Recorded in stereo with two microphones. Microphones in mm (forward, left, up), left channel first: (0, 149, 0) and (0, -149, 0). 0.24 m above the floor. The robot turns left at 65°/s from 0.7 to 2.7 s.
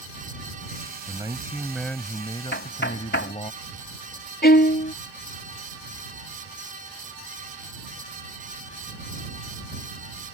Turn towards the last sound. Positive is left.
turn(degrees=35)  # may be behind; listen again after turning